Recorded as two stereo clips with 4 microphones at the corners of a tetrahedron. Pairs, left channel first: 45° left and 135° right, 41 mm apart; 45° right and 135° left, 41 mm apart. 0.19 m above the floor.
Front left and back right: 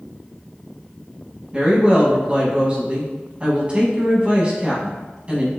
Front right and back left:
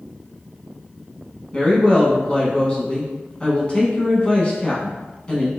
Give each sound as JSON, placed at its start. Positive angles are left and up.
{"t": 1.5, "sound": "a woman speaking", "azimuth_deg": -90, "distance_m": 1.2}